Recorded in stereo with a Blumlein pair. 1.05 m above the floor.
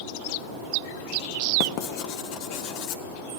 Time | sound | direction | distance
1.6 | writing | 45° left | 0.9 m